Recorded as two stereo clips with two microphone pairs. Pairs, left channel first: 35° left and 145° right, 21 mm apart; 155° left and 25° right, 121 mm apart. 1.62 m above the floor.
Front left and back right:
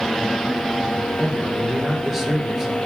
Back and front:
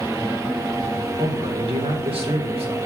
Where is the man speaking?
70° right, 1.7 m.